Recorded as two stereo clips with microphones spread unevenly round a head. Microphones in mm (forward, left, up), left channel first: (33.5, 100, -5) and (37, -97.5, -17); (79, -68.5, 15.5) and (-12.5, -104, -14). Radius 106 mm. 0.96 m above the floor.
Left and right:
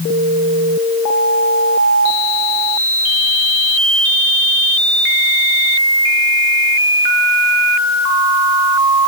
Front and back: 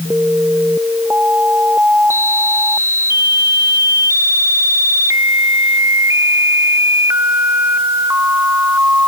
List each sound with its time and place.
Only background noise.